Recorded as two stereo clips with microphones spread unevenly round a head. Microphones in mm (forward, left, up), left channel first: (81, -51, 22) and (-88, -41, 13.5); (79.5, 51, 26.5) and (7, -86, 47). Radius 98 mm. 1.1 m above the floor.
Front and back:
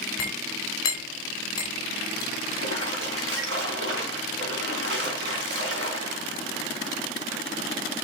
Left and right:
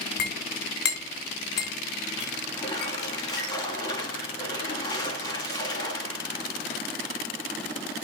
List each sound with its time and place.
0.2 s a clink: 70° left, 3 m
2.5 s a splash: 135° left, 3 m